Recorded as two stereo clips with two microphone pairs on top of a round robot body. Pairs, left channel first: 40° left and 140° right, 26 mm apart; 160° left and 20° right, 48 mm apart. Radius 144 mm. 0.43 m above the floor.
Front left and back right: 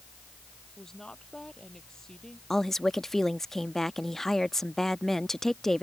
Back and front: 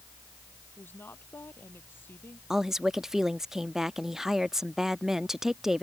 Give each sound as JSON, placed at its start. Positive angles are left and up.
{"t": 0.8, "sound": "a woman speaking", "azimuth_deg": 115}
{"t": 2.5, "sound": "a woman speaking", "azimuth_deg": -5}